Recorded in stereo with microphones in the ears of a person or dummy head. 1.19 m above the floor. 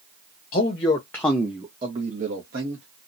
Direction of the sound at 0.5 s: 40° left (ahead or behind).